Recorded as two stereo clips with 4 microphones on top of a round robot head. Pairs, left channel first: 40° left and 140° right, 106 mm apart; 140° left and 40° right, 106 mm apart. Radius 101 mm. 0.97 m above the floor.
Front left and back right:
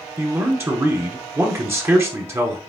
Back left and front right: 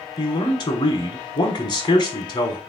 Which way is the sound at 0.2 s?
165° left.